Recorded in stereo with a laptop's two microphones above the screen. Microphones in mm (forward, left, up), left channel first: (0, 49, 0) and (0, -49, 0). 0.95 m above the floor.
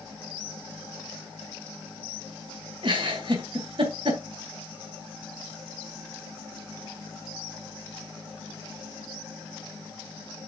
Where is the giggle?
60° right (ahead or behind), 3.5 m.